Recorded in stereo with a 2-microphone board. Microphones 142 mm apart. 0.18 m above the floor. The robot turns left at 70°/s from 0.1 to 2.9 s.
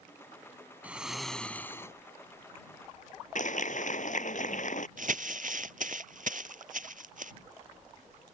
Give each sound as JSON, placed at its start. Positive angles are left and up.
{"t": 0.8, "sound": "snoring", "side_deg": -10}
{"t": 3.4, "sound": "a clap", "side_deg": 65}
{"t": 5.0, "sound": "crumpling", "side_deg": -70}